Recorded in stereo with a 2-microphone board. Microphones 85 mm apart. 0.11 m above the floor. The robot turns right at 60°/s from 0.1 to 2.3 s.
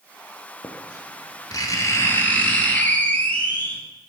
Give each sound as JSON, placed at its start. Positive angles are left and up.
{"t": 0.6, "sound": "writing", "azimuth_deg": 55, "distance_m": 1.1}